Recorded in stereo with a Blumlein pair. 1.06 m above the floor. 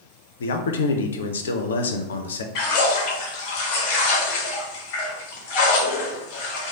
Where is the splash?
40° left, 0.8 m.